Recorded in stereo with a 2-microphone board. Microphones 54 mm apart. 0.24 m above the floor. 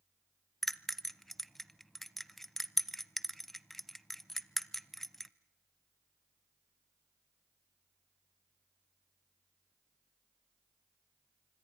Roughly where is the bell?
Centre.